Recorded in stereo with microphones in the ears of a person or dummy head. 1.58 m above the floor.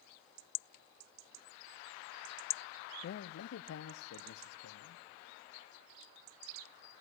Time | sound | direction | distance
3.0 | a man speaking | 50° left (ahead or behind) | 0.6 m